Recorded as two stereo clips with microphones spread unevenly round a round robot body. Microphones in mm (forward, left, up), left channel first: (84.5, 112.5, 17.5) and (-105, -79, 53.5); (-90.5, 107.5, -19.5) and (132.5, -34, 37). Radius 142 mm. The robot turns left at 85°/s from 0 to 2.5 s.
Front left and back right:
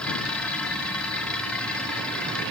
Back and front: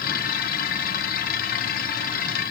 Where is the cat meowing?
I don't hear a cat meowing.